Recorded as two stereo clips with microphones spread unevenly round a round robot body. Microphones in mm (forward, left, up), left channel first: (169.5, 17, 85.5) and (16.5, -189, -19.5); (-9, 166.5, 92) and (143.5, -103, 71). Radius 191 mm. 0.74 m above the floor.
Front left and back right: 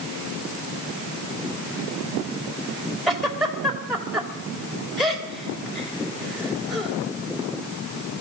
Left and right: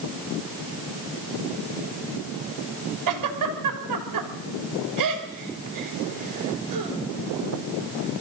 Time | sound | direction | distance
3.1 | a giggle | 40° right | 3 m